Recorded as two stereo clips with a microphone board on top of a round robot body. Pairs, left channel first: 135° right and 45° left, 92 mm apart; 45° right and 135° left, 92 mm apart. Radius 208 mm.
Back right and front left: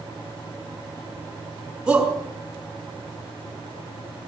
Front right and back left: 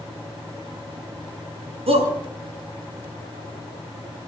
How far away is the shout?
About 6.5 m.